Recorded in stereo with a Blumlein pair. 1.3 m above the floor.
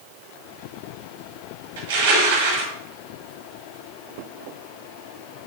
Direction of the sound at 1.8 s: 55° right.